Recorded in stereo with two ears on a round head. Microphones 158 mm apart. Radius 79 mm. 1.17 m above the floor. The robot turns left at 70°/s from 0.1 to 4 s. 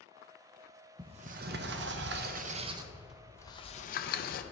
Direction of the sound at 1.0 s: 30° right.